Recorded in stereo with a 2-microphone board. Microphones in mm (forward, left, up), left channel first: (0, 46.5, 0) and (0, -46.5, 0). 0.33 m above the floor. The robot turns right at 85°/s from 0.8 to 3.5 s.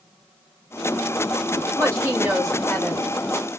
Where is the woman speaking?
65° right, 1.6 m; by 3.1 s 50° left, 1.6 m.